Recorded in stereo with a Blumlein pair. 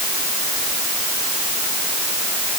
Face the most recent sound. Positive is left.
No sound to turn to.